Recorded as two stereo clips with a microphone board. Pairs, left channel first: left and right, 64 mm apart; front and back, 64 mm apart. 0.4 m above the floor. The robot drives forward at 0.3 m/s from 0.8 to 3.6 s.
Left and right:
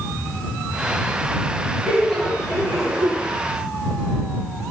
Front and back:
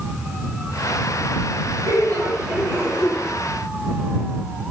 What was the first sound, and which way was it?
Laughter, 165° left.